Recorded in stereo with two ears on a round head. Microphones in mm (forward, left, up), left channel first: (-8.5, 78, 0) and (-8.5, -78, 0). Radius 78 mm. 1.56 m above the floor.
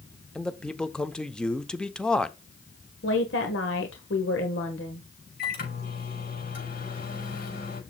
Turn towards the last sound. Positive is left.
turn(degrees=55)  # may be behind; listen again after turning